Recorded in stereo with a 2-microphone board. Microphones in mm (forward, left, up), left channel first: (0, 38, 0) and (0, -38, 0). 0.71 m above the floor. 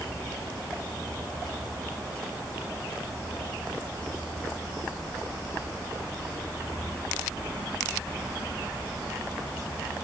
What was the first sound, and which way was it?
Only background noise.